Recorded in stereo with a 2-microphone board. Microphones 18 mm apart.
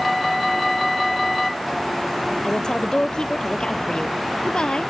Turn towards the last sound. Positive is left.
turn(degrees=55)  # may be behind; listen again after turning